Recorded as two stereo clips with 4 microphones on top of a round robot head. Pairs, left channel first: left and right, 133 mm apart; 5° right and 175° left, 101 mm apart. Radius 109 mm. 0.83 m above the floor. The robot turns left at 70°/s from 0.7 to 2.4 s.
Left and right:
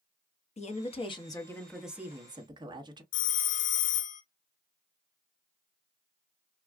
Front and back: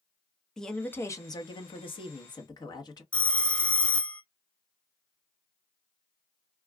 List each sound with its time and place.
0.6 s a woman speaking: 75° left, 1.1 m; by 3.0 s 45° right, 1.1 m
3.1 s a phone ringing: 75° left, 0.6 m